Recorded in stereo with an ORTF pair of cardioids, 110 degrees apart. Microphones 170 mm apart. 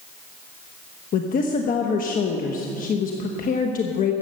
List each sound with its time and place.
1.1 s a woman speaking: 50° left, 1.2 m